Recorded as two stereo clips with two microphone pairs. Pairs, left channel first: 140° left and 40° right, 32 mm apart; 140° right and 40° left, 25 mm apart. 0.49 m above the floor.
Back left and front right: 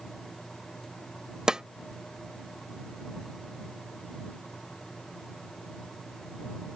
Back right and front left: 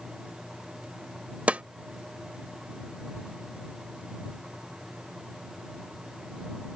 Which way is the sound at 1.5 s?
25° left.